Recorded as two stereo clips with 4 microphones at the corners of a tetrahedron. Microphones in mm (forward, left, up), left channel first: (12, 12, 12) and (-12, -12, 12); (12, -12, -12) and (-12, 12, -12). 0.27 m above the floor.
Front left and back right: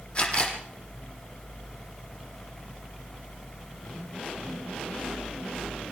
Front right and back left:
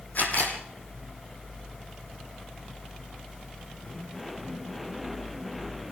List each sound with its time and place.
0.1 s a camera shutter: 15° right, 5 m